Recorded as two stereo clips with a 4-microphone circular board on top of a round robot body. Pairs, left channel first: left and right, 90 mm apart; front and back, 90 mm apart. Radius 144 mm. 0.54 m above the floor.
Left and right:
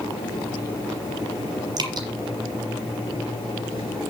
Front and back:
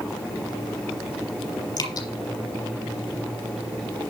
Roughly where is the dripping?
Ahead right.